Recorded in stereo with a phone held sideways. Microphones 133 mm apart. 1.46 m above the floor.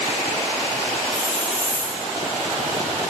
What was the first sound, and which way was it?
A hiss, 70° left (ahead or behind).